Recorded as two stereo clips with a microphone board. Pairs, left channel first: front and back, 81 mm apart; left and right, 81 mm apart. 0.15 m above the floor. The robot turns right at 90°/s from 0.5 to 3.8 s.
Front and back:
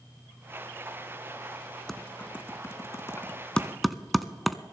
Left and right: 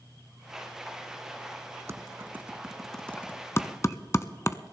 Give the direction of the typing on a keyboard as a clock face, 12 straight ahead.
3 o'clock.